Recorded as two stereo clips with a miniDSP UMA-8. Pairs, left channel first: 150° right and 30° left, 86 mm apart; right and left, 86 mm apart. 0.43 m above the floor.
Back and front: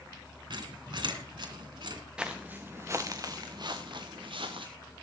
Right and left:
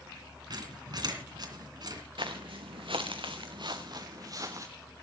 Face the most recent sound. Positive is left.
turn(degrees=40)